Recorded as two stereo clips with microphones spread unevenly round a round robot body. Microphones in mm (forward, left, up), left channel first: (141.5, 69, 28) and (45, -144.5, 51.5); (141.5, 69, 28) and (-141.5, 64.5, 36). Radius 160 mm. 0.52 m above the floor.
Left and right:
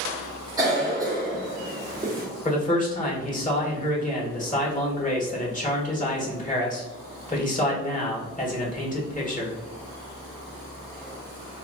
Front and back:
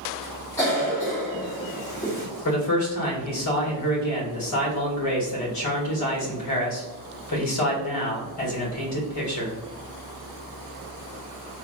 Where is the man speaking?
15° left, 1.7 m.